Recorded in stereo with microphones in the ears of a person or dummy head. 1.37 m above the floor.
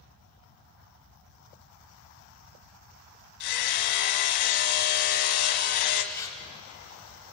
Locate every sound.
3.4 s hammering: 75° left (ahead or behind), 1.5 m
6.1 s tearing paper: 15° left (ahead or behind), 2.5 m